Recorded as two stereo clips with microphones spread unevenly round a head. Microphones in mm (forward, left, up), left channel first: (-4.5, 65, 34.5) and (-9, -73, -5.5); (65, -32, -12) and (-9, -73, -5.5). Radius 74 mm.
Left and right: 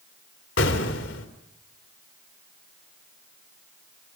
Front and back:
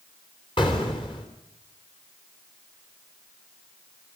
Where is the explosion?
90° left, 3 m.